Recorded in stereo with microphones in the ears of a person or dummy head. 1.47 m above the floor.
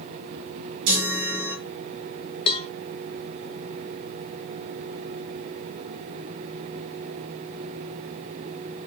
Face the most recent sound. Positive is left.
turn(degrees=25)  # may be behind; listen again after turning